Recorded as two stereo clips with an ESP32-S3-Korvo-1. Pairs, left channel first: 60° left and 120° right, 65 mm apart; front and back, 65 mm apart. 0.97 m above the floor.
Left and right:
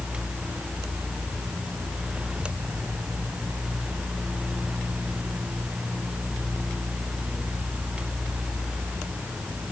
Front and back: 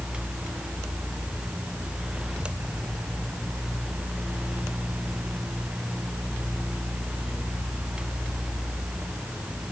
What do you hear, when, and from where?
Only background noise.